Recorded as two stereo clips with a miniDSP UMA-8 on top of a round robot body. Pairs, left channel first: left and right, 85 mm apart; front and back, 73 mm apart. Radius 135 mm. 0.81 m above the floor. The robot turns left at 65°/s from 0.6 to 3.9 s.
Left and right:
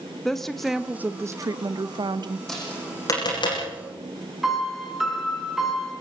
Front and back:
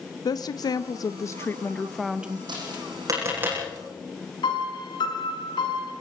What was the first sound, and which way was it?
A woman speaking, 5° left.